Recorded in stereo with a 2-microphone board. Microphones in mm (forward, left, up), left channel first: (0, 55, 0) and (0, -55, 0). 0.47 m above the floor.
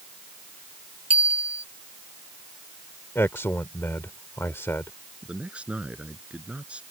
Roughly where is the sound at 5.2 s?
Centre.